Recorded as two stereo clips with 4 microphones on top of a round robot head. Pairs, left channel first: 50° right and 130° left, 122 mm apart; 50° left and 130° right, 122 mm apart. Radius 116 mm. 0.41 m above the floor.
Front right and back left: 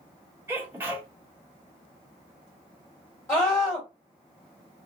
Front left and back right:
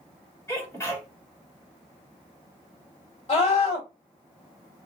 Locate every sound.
0.5 s a sneeze: 85° left, 1.5 m
3.3 s a scream: 20° left, 1.9 m